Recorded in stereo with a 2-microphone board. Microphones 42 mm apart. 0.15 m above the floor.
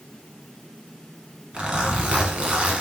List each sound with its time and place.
1.5 s a zipper: 25° right (ahead or behind), 1.2 m